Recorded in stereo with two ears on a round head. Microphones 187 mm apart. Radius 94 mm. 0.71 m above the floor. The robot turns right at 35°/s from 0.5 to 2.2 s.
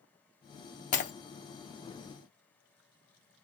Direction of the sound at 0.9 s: 40° left (ahead or behind).